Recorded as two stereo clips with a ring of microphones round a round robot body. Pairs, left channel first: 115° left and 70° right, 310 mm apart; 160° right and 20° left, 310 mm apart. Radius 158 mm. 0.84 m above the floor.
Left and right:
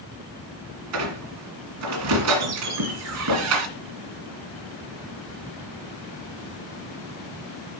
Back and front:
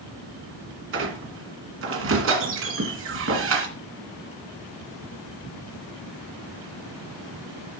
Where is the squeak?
25° right, 1.9 m.